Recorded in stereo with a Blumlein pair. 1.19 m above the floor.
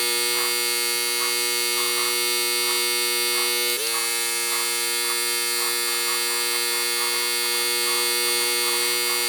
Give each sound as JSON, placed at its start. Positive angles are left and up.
{"t": 0.0, "sound": "a machine running", "azimuth_deg": 0}